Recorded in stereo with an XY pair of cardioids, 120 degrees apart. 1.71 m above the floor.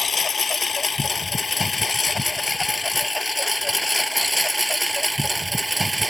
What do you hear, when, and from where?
0.0 s a lawn mower: 30° left; by 6.1 s 10° right